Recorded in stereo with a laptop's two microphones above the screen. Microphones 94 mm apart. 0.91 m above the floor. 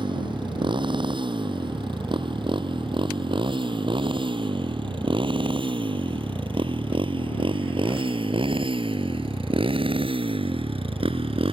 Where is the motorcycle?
60° right (ahead or behind); by 11.5 s 80° right.